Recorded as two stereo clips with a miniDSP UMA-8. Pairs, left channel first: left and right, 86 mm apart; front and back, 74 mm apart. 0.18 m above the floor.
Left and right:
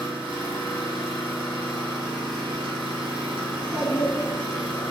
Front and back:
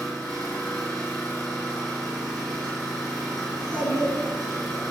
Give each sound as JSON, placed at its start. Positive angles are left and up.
{"t": 0.0, "sound": "an engine running", "azimuth_deg": -75, "distance_m": 1.6}
{"t": 3.5, "sound": "a child speaking", "azimuth_deg": -90, "distance_m": 0.8}